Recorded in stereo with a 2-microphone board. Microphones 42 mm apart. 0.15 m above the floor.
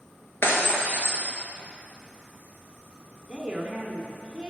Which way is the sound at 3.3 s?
20° right (ahead or behind).